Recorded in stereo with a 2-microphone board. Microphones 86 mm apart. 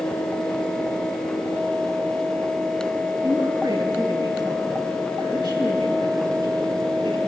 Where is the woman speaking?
55° right (ahead or behind), 6 m; by 7.2 s 70° right (ahead or behind), 8.5 m.